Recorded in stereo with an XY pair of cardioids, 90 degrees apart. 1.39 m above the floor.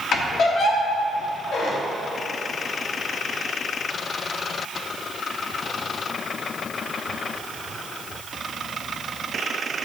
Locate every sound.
0.1 s a squeak: 70° left, 1.7 m